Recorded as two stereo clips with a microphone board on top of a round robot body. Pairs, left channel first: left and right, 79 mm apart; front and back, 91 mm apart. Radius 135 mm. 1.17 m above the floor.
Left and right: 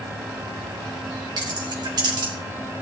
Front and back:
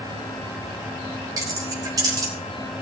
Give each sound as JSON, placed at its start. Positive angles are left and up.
{"t": 1.4, "sound": "keys jangling", "azimuth_deg": -125, "distance_m": 3.0}